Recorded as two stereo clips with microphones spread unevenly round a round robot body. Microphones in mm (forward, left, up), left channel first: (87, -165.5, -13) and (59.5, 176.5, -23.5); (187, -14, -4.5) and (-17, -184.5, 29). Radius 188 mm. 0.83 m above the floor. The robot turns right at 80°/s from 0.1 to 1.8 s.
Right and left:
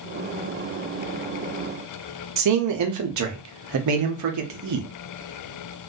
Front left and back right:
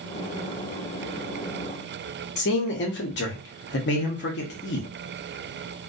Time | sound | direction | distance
2.4 | a man speaking | 75° left | 0.6 m